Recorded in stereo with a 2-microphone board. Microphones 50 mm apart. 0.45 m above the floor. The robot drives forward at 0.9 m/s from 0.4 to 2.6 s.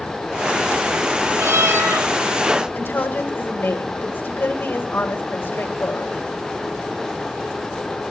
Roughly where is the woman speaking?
Left.